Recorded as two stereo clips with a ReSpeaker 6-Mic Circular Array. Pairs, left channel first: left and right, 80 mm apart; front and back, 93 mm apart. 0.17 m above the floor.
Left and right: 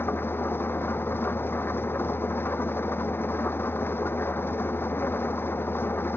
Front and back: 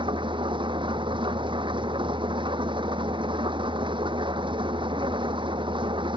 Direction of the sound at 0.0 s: 155° left.